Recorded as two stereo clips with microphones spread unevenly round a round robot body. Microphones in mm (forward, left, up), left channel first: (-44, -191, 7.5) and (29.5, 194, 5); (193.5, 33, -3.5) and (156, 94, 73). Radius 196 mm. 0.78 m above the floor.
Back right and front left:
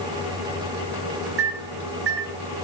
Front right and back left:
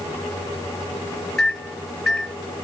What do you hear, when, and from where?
1.4 s a microwave: 20° left, 4.5 m